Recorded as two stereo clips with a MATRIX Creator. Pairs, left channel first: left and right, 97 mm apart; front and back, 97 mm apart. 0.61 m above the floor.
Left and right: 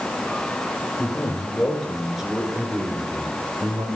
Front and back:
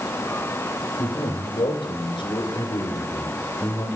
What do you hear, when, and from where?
1.0 s a man speaking: 25° left, 3 m; by 3.9 s 55° right, 3 m